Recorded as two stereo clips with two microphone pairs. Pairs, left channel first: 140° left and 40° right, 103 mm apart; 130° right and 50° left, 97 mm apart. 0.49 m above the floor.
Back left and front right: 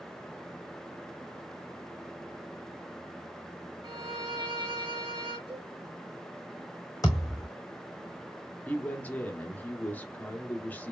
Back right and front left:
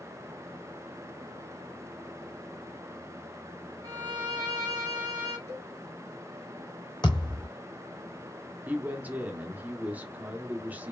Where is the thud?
170° right, 3 m.